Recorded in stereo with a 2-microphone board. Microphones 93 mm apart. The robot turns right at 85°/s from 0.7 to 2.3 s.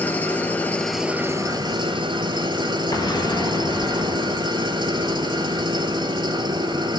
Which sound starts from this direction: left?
An explosion, at 2.9 s.